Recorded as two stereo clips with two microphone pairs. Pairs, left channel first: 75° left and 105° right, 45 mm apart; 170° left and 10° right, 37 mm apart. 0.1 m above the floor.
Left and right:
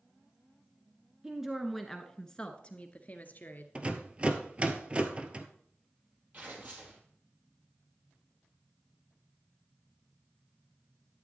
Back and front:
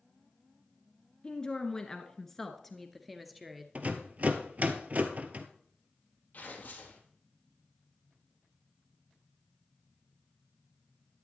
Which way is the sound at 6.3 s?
150° right.